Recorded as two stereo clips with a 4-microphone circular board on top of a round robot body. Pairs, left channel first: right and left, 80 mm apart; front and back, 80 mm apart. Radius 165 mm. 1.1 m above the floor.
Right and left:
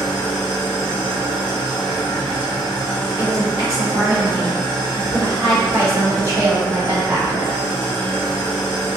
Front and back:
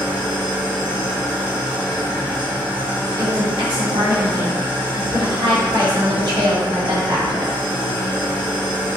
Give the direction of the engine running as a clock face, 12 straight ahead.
4 o'clock.